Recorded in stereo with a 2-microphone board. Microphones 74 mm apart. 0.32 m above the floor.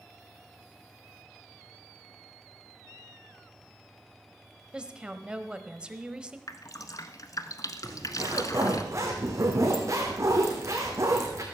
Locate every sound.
4.7 s a woman speaking: 10° right (ahead or behind), 1.3 m
6.5 s dripping: 50° left (ahead or behind), 1.2 m
7.8 s a zipper: 45° right (ahead or behind), 4 m